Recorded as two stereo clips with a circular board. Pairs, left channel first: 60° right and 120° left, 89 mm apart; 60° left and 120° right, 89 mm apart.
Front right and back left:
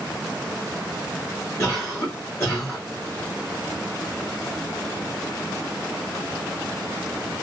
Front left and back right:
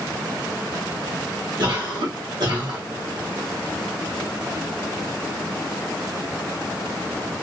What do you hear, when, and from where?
1.6 s a cough: 110° right, 1.9 m